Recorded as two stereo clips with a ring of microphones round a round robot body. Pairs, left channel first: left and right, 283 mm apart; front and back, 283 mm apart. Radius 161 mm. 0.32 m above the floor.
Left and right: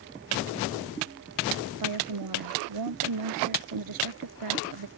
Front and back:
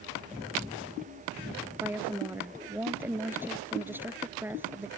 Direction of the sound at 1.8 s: 95° right.